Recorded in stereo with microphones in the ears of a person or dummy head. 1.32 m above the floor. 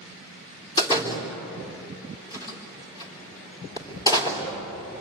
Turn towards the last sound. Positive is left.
turn(degrees=25)  # may be behind; listen again after turning